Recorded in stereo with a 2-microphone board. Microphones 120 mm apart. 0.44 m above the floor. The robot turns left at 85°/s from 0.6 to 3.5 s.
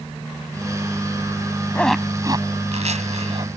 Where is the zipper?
15° left (ahead or behind); by 3.5 s 45° right (ahead or behind).